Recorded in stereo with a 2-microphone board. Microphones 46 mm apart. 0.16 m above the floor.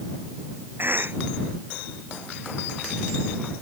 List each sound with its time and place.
0.8 s a cough: 50° right (ahead or behind)